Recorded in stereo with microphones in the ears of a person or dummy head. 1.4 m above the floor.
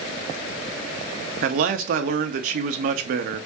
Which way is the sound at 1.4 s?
55° right (ahead or behind).